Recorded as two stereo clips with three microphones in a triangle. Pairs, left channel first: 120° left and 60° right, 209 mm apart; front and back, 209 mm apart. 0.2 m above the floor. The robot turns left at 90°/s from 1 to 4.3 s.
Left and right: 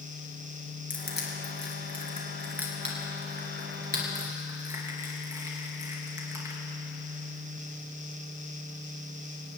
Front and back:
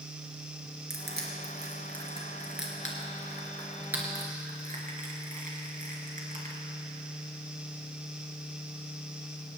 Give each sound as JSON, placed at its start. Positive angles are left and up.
{"t": 0.9, "sound": "crushing", "azimuth_deg": 165, "distance_m": 3.5}